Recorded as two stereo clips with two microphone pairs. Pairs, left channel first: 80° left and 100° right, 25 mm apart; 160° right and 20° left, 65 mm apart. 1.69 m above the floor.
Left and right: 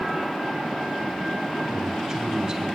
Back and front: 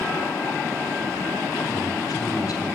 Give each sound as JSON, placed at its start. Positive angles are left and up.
{"t": 1.5, "sound": "a man speaking", "azimuth_deg": -170, "distance_m": 6.5}